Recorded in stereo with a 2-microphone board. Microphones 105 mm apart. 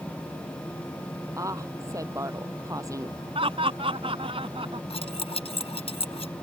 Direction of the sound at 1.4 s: 30° right (ahead or behind).